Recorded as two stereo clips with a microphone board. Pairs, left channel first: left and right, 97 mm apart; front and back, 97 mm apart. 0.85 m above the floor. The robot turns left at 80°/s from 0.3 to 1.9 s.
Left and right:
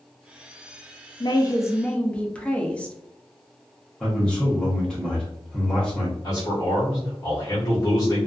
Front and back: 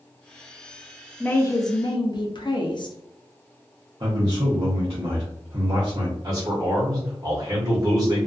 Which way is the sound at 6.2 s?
130° left.